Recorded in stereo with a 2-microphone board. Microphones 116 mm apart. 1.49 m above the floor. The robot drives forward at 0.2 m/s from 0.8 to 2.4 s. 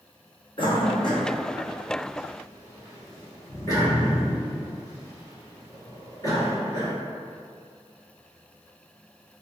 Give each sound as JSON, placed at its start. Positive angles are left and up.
{"t": 0.6, "sound": "a cough", "side_deg": 45, "distance_m": 0.7}